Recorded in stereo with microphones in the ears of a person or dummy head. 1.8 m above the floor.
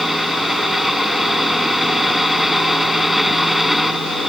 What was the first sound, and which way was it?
A fan, centre (ahead or behind).